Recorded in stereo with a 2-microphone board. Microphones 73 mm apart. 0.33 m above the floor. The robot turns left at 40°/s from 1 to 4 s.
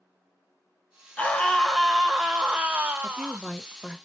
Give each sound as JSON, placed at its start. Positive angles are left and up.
{"t": 1.2, "sound": "a scream", "azimuth_deg": 35, "distance_m": 1.3}
{"t": 3.0, "sound": "a woman speaking", "side_deg": 5, "distance_m": 1.2}